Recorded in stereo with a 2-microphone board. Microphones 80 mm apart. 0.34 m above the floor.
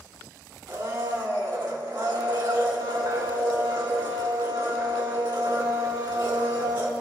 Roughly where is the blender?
Right.